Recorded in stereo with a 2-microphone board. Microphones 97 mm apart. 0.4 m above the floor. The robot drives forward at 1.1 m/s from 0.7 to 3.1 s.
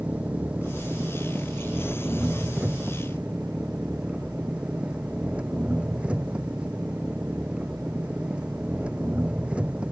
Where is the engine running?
15° right (ahead or behind); by 9.9 s 10° right (ahead or behind).